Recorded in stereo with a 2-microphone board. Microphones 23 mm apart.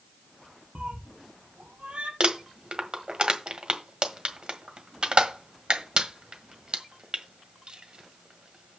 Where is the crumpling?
50° right (ahead or behind), 1.5 m.